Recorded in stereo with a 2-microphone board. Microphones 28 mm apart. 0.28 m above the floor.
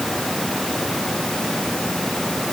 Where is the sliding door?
No sliding door in this recording.